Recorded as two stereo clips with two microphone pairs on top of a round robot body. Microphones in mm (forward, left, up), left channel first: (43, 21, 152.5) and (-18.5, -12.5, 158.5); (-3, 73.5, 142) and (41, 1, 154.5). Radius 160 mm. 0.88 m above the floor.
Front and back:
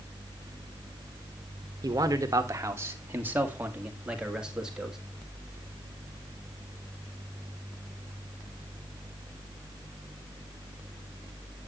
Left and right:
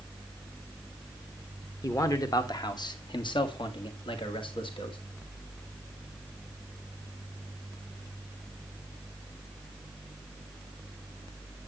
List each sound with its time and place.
1.8 s a man speaking: 170° left, 1.4 m; by 5.0 s 125° left, 2.5 m